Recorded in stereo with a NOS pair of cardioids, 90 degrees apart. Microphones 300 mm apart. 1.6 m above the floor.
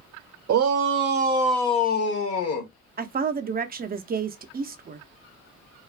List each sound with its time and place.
0.5 s a shout: 70° right, 0.9 m; by 2.7 s 60° left, 1.2 m
3.0 s a woman speaking: 30° right, 0.6 m